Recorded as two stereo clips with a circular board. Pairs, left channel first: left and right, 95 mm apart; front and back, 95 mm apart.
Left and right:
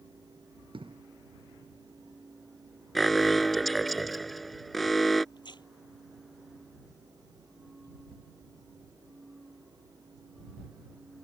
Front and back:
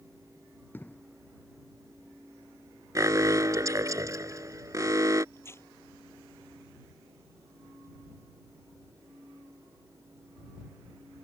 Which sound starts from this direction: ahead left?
Tearing paper, at 5.3 s.